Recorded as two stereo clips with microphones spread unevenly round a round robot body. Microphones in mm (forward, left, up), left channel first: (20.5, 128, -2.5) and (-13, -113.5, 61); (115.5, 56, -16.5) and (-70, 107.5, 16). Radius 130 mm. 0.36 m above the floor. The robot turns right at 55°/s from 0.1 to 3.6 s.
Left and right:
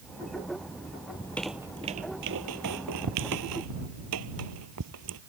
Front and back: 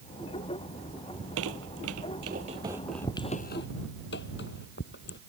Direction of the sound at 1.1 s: 155° left.